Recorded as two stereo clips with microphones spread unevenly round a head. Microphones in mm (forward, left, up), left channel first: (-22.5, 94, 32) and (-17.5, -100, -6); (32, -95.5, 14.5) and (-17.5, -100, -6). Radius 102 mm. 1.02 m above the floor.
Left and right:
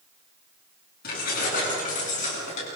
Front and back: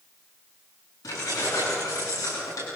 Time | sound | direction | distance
1.0 | keys jangling | 45° left | 10 m